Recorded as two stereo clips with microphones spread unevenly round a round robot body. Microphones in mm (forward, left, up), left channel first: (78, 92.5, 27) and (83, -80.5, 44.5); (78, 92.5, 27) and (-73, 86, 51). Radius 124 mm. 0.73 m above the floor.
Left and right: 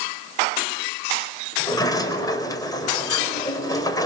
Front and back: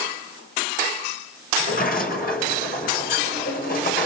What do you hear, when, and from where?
1.6 s a sliding door: 20° left, 4 m